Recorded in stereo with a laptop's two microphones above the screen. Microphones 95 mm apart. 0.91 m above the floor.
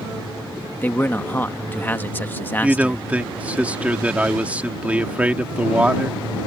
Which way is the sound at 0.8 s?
20° left (ahead or behind).